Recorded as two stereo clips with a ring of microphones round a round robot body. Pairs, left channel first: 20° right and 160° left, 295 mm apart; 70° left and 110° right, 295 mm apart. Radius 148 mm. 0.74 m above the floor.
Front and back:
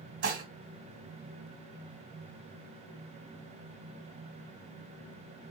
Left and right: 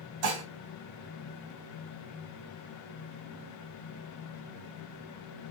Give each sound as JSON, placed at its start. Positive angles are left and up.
{"t": 0.2, "sound": "dishes clattering", "azimuth_deg": -145, "distance_m": 3.5}